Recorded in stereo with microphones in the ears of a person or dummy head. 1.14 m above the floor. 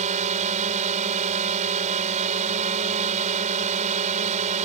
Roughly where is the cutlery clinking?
I don't hear cutlery clinking.